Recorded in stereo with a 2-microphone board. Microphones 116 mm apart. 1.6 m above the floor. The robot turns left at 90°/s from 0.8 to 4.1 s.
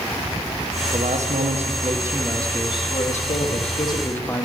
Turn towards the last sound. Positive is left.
turn(degrees=20)